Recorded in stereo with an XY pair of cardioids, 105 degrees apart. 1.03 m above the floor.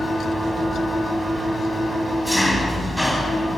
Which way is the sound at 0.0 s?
10° left.